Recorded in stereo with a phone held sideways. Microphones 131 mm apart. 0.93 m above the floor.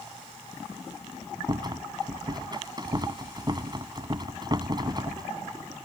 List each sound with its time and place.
1.5 s a rattle: 35° right (ahead or behind)